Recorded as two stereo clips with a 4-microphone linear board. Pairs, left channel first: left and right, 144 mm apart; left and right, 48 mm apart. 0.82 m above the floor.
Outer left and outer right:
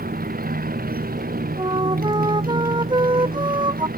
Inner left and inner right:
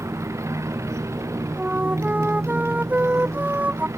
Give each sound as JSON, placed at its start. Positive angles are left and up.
{"t": 0.0, "sound": "a motorcycle", "side_deg": -85}
{"t": 1.6, "sound": "a flute", "side_deg": -30}